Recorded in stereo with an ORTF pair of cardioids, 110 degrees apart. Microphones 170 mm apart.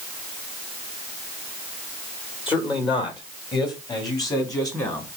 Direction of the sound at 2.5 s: 30° left.